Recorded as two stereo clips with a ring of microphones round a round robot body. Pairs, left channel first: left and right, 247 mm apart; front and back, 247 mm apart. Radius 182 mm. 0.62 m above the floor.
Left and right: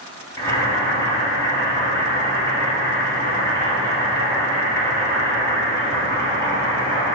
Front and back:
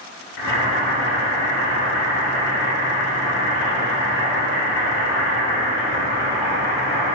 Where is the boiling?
15° left, 0.9 m.